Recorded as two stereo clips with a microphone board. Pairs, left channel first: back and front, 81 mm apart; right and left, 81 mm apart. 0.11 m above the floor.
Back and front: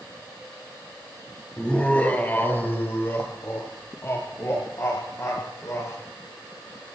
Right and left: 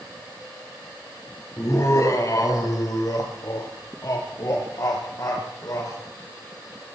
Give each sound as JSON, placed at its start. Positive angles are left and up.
{"t": 1.6, "sound": "laughter", "azimuth_deg": -110, "distance_m": 2.0}